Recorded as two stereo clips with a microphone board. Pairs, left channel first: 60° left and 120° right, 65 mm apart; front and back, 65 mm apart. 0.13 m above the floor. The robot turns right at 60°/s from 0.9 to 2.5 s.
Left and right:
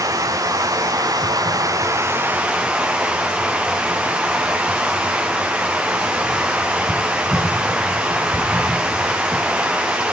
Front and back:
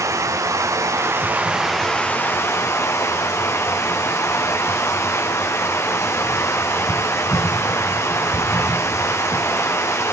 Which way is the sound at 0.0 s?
140° right.